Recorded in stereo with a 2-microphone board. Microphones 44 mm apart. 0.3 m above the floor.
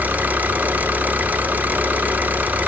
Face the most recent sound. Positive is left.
turn(degrees=-40)  # may be behind; listen again after turning